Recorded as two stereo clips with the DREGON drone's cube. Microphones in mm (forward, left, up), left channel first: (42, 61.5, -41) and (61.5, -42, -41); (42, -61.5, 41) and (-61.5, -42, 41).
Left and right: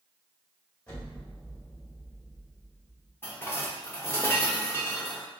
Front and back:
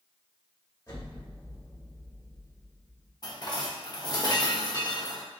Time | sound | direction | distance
0.9 | an explosion | 30° left | 1.8 m
3.2 | dishes clattering | 35° left | 0.8 m